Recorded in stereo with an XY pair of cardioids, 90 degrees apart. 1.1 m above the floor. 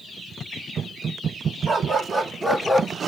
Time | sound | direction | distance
1.7 | a dog barking | 50° right | 1.7 m